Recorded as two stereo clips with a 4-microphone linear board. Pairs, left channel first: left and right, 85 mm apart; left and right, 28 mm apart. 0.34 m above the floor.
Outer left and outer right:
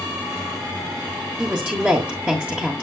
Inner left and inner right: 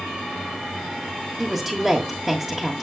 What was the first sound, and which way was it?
A woman speaking, 15° right (ahead or behind).